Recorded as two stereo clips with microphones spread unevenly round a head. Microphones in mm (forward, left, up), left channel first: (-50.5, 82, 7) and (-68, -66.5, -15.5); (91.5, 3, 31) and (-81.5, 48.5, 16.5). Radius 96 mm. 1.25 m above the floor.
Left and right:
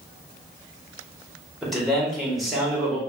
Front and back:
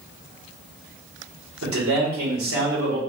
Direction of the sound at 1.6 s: 170° left.